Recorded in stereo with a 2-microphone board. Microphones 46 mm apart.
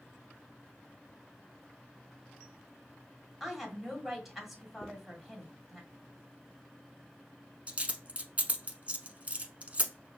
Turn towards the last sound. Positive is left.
turn(degrees=-30)  # may be behind; listen again after turning